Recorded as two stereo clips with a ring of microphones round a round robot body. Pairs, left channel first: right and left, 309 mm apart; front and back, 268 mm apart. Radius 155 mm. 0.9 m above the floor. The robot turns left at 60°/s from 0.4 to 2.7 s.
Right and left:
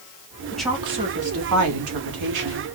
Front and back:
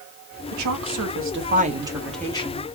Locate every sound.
0.5 s a woman speaking: 175° right, 1.7 m; by 2.6 s 55° left, 1.7 m